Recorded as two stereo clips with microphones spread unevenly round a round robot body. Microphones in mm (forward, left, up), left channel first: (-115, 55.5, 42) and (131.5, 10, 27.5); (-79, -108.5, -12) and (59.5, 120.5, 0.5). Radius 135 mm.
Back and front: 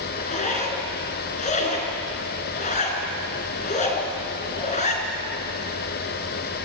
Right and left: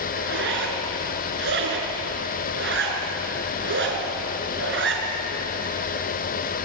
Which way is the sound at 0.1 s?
105° left.